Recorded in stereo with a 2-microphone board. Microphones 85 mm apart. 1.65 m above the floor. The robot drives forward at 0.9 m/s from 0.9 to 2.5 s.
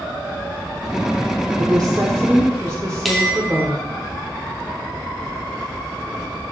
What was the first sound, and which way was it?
A woman speaking, 50° right (ahead or behind).